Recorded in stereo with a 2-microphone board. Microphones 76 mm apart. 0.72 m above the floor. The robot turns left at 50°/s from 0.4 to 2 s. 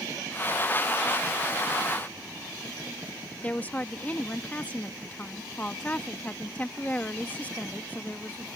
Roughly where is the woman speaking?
Left.